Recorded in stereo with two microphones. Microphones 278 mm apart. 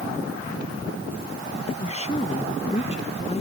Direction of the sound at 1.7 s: 20° left (ahead or behind).